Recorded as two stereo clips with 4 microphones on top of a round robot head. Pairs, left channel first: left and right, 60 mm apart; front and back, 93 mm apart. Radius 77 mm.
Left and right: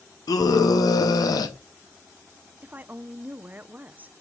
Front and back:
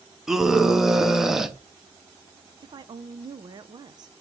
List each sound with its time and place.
0.3 s a scream: 95° left, 0.9 m
2.6 s a woman speaking: 150° right, 0.5 m